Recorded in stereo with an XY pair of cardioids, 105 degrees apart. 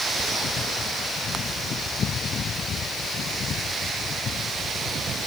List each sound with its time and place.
Only background noise.